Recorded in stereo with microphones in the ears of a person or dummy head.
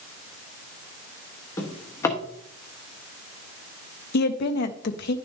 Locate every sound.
1.6 s a drawer: 15° left (ahead or behind), 1.2 m
4.1 s a woman speaking: 65° left (ahead or behind), 0.8 m